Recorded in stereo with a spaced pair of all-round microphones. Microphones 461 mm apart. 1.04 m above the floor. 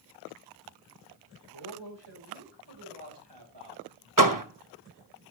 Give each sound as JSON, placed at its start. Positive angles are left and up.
{"t": 1.5, "sound": "a man speaking", "side_deg": -75, "distance_m": 4.5}
{"t": 4.2, "sound": "a door slam", "side_deg": -45, "distance_m": 1.0}